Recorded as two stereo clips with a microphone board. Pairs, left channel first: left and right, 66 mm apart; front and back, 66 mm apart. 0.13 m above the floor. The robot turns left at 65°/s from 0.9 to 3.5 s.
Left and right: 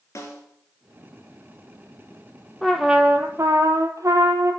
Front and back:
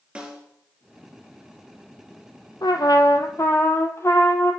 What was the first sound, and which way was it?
A snare drum, 115° left.